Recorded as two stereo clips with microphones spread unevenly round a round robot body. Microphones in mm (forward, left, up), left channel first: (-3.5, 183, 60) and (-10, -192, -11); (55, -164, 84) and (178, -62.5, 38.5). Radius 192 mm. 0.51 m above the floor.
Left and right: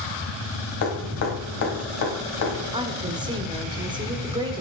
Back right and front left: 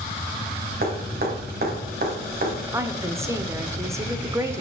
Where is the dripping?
40° left, 3.5 m.